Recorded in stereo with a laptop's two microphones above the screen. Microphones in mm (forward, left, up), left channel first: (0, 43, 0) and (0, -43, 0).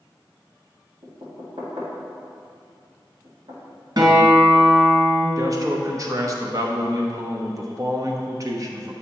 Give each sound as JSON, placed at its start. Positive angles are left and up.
{"t": 1.0, "sound": "knocking", "side_deg": -80, "distance_m": 2.0}
{"t": 4.0, "sound": "a guitar", "side_deg": -60, "distance_m": 2.0}
{"t": 5.4, "sound": "a man speaking", "side_deg": -40, "distance_m": 0.9}